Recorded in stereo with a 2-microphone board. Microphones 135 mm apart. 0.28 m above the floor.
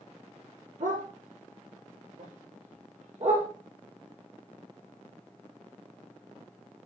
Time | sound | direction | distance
0.8 | a dog barking | 75° right (ahead or behind) | 3.5 m